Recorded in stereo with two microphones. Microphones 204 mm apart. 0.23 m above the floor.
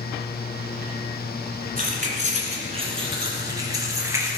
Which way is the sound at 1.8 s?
45° right (ahead or behind).